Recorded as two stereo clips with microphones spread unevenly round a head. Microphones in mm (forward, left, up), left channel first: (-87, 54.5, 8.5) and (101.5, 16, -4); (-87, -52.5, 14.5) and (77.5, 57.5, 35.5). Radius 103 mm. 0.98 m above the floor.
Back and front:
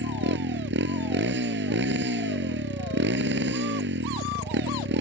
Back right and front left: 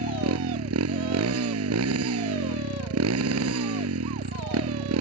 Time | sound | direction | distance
0.0 | a motorcycle | 15° left | ?